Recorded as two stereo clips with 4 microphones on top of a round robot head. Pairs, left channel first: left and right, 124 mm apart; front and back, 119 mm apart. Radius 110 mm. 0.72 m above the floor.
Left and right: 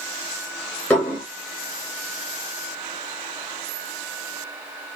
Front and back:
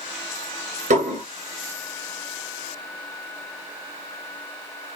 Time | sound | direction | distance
0.9 | dishes clattering | 170° left | 1.9 m